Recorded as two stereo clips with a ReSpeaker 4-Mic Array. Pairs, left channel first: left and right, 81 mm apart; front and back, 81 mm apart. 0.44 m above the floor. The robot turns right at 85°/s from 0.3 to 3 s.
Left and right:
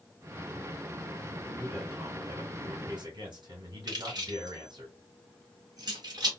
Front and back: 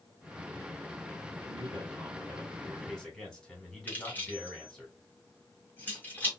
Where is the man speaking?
150° left, 2.5 m; by 4.9 s 80° right, 2.5 m.